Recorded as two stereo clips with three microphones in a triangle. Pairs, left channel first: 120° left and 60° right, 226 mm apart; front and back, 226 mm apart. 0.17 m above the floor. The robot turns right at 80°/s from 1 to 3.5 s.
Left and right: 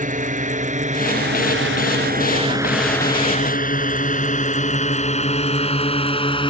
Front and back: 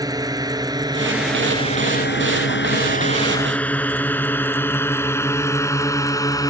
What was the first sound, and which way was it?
A drone, 110° right.